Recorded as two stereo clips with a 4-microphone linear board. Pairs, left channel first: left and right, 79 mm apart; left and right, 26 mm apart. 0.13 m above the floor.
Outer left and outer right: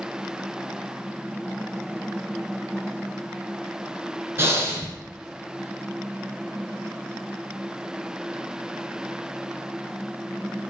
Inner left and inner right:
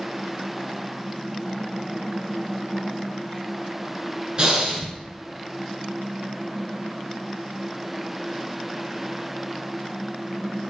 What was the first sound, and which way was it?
Breathing, 35° right (ahead or behind).